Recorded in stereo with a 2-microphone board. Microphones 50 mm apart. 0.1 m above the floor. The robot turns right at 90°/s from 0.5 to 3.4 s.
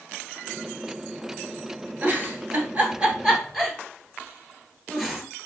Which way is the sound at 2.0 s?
30° right (ahead or behind).